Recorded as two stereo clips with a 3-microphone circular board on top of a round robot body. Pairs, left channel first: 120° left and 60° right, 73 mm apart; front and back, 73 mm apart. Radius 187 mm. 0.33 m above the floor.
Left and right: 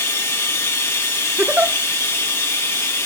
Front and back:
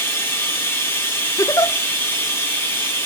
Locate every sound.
0.0 s running water: 65° left, 3 m
1.4 s a giggle: straight ahead, 1.0 m